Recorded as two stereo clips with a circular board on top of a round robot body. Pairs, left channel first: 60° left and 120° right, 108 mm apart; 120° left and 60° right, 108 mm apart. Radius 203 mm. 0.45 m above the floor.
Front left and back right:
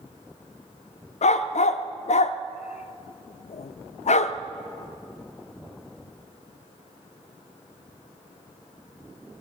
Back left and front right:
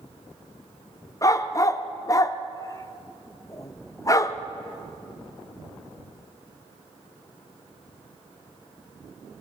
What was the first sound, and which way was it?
A dog barking, 60° left.